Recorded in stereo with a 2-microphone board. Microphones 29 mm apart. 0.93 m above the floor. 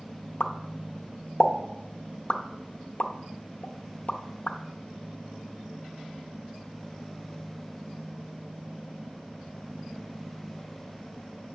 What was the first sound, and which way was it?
A pop, 50° left (ahead or behind).